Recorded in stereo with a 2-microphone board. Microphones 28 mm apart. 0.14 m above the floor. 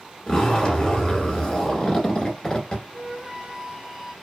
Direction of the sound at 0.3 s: 25° left (ahead or behind).